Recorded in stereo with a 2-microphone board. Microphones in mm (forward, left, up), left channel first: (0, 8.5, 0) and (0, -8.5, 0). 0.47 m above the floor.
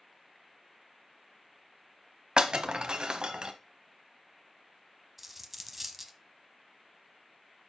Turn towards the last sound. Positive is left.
turn(degrees=-10)  # may be behind; listen again after turning